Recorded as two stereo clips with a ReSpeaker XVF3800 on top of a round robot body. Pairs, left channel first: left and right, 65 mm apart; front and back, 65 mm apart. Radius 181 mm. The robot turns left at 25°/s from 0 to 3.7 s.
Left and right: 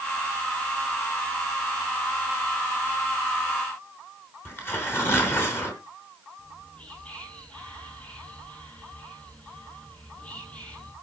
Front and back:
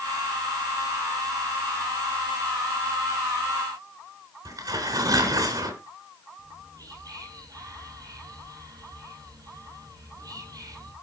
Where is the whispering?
160° left, 8.5 m.